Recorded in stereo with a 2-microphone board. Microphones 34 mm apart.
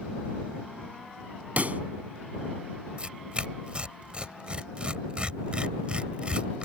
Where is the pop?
50° right (ahead or behind).